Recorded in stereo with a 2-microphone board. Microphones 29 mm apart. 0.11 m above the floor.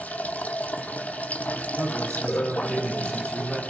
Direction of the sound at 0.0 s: 75° left (ahead or behind).